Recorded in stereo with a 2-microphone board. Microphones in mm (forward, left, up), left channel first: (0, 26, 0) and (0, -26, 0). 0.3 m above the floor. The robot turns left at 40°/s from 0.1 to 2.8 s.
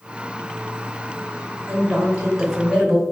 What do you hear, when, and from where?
1.7 s a woman speaking: 15° right (ahead or behind), 1.1 m; by 3.0 s centre (ahead or behind), 1.1 m